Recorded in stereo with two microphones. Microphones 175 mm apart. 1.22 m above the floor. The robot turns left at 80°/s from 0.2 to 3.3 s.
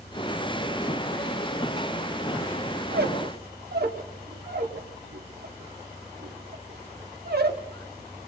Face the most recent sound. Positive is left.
turn(degrees=-65)  # may be behind; listen again after turning